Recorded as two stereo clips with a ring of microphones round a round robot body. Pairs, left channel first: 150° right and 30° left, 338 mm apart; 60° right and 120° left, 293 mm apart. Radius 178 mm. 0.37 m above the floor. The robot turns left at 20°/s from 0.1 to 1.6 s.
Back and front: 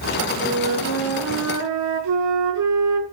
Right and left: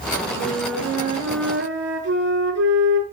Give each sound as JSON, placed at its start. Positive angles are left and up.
{"t": 0.4, "sound": "a flute", "azimuth_deg": 90, "distance_m": 6.5}